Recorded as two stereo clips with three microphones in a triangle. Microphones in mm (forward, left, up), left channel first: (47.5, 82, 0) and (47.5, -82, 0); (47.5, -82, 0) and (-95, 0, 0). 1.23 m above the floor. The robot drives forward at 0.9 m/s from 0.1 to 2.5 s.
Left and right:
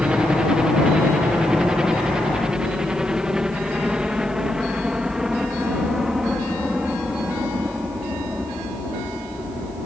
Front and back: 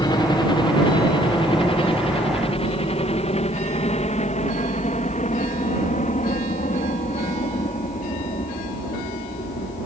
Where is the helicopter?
10° right; by 9.8 s straight ahead.